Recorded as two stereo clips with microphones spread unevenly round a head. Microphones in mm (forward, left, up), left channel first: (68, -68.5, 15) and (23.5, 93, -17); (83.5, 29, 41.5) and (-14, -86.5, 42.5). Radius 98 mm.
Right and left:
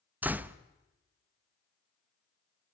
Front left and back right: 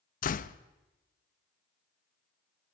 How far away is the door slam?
About 0.7 m.